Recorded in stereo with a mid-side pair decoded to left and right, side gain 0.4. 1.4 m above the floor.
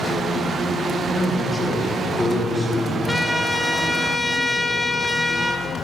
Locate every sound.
1.1 s a man speaking: 55° left, 1.9 m; by 3.0 s 50° left, 4 m
3.1 s a trumpet: 15° left, 0.8 m